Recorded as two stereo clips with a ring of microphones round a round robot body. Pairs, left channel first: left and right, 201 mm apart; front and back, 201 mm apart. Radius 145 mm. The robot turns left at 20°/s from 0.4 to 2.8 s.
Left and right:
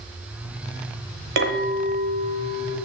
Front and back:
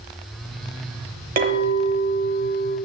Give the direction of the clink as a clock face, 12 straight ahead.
4 o'clock.